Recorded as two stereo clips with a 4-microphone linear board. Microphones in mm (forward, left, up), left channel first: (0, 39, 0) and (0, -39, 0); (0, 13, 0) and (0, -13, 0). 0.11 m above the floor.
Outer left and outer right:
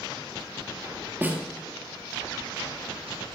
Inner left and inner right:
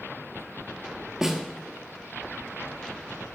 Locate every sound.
1.2 s a snare drum: 20° right (ahead or behind), 1.5 m